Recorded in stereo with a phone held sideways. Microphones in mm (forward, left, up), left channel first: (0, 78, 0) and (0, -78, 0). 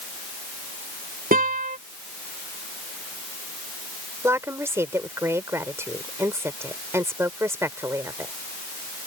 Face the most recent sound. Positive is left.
turn(degrees=-15)  # may be behind; listen again after turning